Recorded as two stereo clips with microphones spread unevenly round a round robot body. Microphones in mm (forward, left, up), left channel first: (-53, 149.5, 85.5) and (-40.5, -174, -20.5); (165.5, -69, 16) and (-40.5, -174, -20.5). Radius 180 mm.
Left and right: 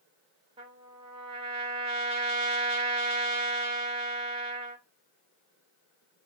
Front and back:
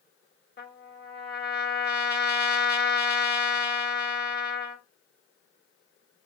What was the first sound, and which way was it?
A trumpet, 20° right.